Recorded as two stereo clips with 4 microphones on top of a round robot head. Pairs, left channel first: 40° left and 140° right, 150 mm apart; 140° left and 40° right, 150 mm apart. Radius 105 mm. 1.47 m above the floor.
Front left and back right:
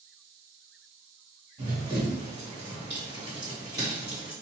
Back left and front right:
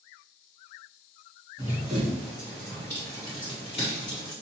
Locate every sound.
1.6 s running footsteps: 100° right, 2.0 m; by 4.3 s 145° left, 1.8 m